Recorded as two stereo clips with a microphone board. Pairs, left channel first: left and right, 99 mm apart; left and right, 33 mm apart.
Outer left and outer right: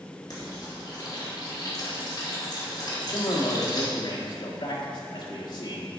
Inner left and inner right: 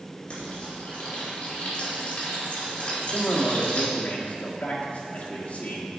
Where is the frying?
45° left (ahead or behind), 2 m.